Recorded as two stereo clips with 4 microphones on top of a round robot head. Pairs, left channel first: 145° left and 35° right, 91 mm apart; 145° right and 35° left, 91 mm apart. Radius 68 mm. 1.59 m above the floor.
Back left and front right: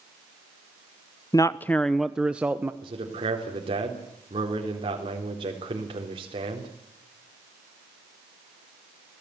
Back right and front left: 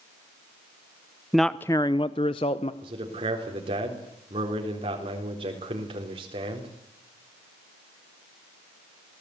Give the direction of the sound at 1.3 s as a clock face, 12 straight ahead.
8 o'clock.